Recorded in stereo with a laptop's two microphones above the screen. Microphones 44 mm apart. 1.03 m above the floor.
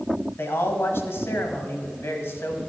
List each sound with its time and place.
0.4 s a man speaking: 65° left (ahead or behind), 1.5 m